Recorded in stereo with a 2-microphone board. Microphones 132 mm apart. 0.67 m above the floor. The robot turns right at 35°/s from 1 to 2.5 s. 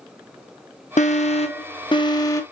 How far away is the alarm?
About 0.7 m.